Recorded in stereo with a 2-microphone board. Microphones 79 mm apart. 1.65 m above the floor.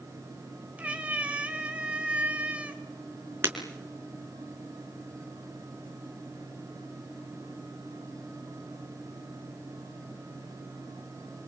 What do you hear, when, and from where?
0.8 s a cat meowing: 20° right (ahead or behind), 3.5 m
3.4 s breaking glass: 30° right (ahead or behind), 4 m